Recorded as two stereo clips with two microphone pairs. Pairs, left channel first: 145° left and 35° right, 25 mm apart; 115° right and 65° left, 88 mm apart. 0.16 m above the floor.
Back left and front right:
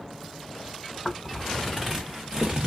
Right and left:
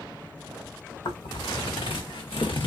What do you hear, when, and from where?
1.1 s footsteps: 140° right, 1.2 m; by 2.7 s 90° right, 0.9 m